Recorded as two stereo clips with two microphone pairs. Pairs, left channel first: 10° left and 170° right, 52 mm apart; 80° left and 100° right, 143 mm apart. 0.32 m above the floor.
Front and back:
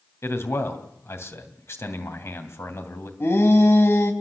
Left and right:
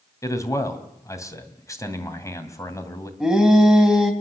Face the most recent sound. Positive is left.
turn(degrees=-15)